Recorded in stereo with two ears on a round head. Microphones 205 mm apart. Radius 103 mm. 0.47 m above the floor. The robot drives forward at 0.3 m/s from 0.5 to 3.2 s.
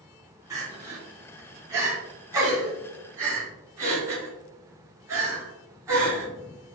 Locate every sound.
0.5 s crying: 15° right (ahead or behind), 3 m